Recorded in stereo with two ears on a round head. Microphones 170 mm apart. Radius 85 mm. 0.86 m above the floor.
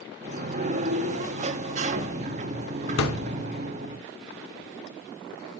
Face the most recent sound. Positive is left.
turn(degrees=75)  # may be behind; listen again after turning